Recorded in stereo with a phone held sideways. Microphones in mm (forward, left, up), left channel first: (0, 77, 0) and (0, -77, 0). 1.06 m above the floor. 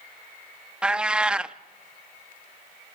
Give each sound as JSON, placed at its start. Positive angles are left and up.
{"t": 0.8, "sound": "a cat meowing", "side_deg": -5, "distance_m": 0.5}